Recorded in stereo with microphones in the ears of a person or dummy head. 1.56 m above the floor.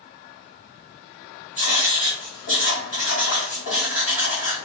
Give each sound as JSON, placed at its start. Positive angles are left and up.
{"t": 1.6, "sound": "writing", "side_deg": 50, "distance_m": 1.9}